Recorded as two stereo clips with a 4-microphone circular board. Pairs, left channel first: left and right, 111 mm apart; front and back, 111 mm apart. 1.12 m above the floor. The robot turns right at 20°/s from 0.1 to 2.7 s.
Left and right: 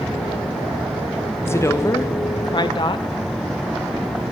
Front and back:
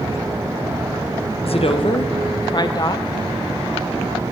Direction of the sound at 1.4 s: 20° left.